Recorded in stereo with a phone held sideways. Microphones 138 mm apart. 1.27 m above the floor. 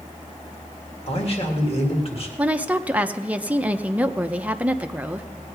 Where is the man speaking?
45° left (ahead or behind), 1.8 m.